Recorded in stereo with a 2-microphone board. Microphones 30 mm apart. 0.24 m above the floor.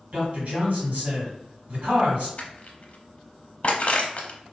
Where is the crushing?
50° left (ahead or behind), 0.7 m.